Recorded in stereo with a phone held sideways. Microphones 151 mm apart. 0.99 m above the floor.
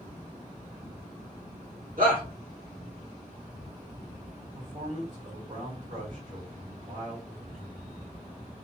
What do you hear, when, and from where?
2.0 s a shout: 70° right (ahead or behind), 1.5 m
4.5 s a man speaking: 60° right (ahead or behind), 1.7 m